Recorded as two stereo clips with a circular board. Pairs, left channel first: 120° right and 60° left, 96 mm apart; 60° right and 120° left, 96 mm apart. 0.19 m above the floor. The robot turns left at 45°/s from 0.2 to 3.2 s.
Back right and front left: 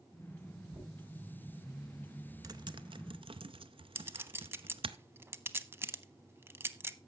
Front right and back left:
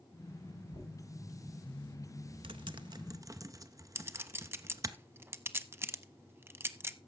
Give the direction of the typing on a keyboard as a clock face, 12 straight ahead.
9 o'clock.